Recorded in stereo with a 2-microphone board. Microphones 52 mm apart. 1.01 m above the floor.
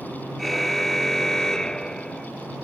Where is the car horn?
Centre (ahead or behind); by 2.3 s 15° left (ahead or behind).